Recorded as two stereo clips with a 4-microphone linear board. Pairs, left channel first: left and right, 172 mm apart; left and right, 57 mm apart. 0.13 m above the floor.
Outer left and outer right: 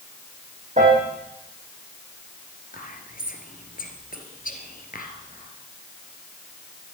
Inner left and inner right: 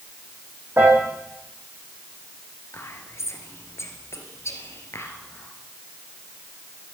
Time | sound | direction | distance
0.8 | a piano | 45° right (ahead or behind) | 4 m
2.7 | whispering | 55° left (ahead or behind) | 2.5 m